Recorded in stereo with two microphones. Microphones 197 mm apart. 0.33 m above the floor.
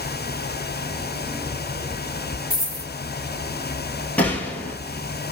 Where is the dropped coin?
45° right (ahead or behind), 1.6 m.